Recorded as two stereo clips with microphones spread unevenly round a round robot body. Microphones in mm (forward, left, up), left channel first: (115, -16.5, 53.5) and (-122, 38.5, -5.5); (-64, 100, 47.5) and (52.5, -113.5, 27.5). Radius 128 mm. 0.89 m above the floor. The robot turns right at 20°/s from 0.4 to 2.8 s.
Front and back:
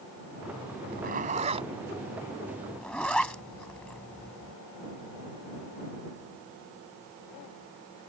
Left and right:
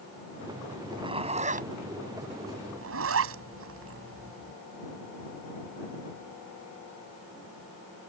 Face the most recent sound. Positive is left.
turn(degrees=-100)